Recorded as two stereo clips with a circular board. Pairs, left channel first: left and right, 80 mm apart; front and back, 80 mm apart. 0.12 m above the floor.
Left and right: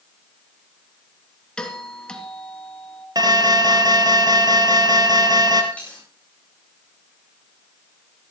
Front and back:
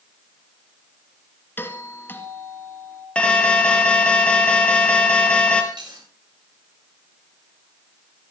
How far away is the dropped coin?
About 9 m.